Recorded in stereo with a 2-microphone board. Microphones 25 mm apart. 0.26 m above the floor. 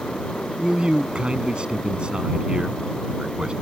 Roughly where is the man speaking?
Right.